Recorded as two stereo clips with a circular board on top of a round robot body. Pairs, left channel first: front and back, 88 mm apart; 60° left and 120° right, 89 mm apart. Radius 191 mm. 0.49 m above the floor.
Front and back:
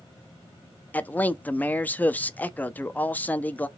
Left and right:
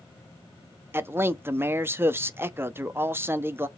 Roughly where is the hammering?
No hammering in this recording.